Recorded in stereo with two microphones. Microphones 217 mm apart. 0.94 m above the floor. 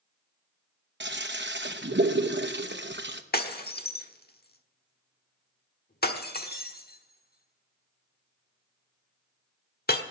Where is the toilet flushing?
55° right (ahead or behind), 0.8 m.